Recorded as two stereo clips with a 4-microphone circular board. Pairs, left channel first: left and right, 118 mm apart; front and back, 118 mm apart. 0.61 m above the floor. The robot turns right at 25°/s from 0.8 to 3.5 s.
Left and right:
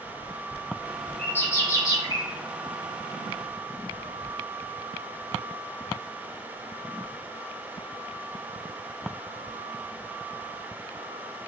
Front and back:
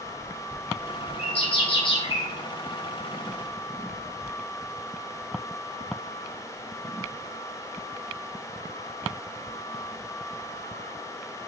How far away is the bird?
About 0.6 m.